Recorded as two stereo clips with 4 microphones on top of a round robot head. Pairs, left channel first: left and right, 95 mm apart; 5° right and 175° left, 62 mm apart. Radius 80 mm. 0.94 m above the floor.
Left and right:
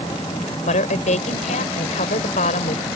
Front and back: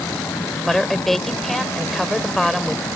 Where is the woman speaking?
80° left.